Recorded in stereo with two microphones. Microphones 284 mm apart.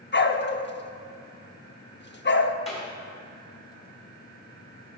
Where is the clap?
20° left (ahead or behind), 4.5 m.